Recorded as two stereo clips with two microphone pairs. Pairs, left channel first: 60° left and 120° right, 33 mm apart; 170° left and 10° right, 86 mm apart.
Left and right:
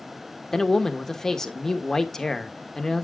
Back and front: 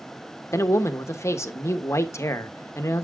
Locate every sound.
0.5 s a man speaking: 135° left, 1.1 m